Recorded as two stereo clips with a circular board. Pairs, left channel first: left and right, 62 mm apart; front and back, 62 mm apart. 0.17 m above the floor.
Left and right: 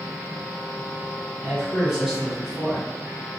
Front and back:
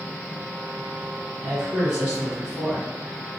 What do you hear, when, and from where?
1.4 s a man speaking: 155° right, 1.4 m